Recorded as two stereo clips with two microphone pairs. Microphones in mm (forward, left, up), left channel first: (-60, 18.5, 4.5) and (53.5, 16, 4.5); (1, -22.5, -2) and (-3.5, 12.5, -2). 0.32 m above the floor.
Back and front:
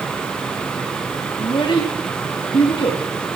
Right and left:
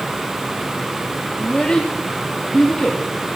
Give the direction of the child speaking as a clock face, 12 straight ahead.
5 o'clock.